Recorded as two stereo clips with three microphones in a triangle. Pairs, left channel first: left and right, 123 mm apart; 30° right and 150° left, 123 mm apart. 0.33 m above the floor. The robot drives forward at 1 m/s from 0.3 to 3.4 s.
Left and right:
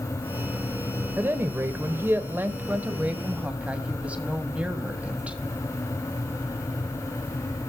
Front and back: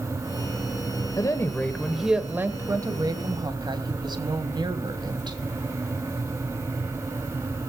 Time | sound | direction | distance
1.2 | a woman speaking | 35° right | 1.3 m